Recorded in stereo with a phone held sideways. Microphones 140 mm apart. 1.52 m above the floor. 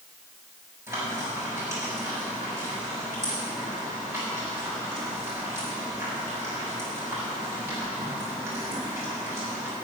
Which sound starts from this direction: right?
Frying, at 0.9 s.